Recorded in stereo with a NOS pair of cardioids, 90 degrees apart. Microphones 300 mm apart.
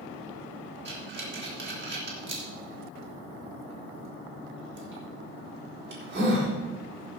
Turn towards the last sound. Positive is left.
turn(degrees=-40)